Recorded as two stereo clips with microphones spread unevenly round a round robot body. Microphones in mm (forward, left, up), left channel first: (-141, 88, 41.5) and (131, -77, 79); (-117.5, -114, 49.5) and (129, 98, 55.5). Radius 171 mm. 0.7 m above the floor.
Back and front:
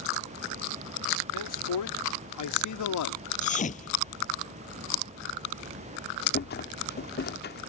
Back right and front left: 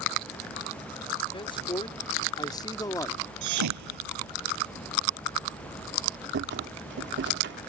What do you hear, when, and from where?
1.3 s a man speaking: 145° left; by 3.2 s 140° left
3.4 s a thud: 80° left
6.3 s a rattle: 95° left